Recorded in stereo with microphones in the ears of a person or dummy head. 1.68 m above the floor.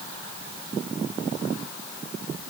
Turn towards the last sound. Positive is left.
No sound to turn to.